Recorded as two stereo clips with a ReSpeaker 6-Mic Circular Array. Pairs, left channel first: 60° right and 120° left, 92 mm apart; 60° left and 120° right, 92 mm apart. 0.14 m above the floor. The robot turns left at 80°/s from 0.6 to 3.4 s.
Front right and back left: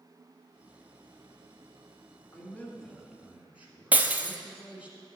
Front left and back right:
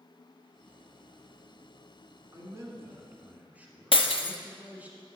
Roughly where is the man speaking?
Right.